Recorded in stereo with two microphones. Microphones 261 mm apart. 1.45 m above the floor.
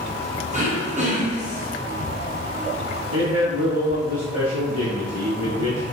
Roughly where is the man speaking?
Right.